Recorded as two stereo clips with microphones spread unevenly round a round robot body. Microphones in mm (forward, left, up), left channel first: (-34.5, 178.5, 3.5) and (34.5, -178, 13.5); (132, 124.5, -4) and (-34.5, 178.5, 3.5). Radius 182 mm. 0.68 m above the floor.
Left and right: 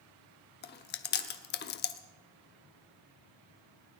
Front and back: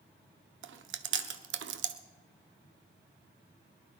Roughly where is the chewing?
Behind.